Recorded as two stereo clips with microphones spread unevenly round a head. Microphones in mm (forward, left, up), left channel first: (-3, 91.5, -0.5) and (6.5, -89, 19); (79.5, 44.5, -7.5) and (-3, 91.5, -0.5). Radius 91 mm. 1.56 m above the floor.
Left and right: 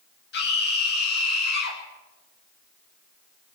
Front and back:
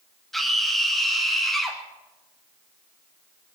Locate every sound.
0.3 s a scream: 60° left, 10 m